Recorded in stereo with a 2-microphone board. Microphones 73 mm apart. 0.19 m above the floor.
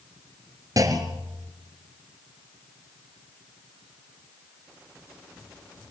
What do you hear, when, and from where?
0.8 s a clunk: 55° right (ahead or behind), 2 m